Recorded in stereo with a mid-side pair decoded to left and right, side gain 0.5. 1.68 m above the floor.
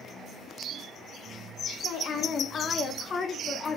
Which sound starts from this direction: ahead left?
A woman speaking, at 1.8 s.